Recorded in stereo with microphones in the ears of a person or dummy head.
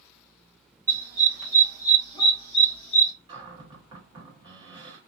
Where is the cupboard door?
20° right (ahead or behind), 1.1 m.